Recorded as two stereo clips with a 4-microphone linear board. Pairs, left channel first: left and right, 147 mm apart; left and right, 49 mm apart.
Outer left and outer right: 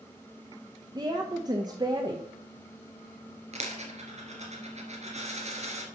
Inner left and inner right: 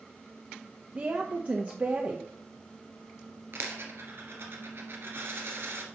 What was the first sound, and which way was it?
A woman speaking, 25° right (ahead or behind).